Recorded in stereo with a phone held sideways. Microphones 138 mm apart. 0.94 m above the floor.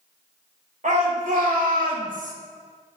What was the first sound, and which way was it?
A shout, 70° right (ahead or behind).